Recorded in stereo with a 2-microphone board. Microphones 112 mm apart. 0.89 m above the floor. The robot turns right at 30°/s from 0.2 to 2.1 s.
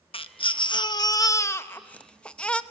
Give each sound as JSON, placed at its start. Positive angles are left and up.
{"t": 0.1, "sound": "a baby crying", "azimuth_deg": 110, "distance_m": 0.7}